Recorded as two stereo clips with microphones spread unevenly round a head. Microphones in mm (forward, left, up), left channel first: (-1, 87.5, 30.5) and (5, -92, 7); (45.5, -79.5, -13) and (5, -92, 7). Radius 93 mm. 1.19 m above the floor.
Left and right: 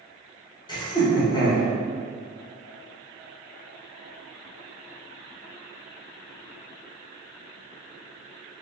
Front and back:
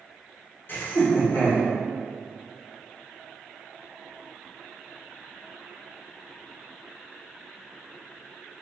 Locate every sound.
0.7 s laughter: 25° left, 1.0 m